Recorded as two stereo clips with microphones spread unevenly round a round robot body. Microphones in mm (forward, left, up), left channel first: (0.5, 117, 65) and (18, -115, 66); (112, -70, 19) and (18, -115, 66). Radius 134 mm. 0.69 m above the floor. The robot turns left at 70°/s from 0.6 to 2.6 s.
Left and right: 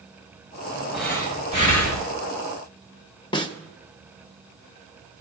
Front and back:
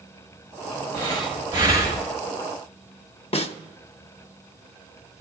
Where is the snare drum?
25° left, 0.6 m.